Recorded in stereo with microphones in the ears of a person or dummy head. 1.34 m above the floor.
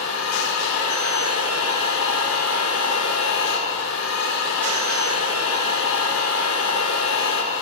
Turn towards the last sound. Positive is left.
turn(degrees=85)